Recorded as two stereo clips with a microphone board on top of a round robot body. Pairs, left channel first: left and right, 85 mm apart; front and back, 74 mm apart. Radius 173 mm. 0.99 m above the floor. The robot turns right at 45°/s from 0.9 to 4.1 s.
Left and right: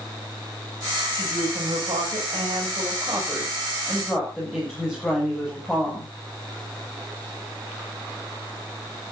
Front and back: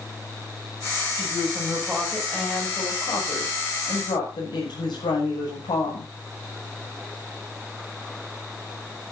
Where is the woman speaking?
120° right, 7 m; by 6.1 s 10° left, 7 m.